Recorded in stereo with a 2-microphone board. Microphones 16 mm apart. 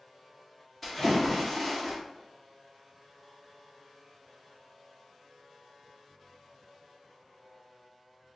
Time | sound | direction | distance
0.8 | a splash | 10° left (ahead or behind) | 1.5 m